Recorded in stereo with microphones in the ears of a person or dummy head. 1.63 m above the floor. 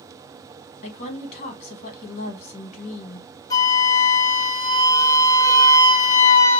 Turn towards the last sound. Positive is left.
turn(degrees=20)  # may be behind; listen again after turning